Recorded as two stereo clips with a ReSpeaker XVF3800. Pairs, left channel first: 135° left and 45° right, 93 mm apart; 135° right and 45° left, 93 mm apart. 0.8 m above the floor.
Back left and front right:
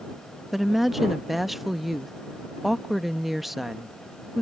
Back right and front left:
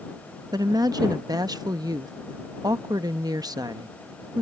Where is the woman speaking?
45° left.